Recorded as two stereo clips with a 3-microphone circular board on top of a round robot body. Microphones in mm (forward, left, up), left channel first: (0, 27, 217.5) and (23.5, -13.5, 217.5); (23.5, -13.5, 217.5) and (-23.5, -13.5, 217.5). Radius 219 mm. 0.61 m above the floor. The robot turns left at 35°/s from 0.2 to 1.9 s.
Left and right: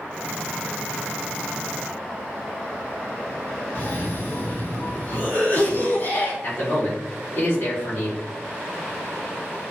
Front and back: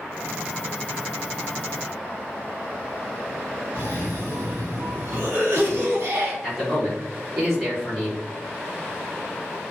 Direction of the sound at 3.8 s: 150° left.